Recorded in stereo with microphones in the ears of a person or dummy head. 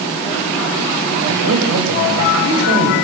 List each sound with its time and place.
1.3 s a man speaking: 90° right, 7.5 m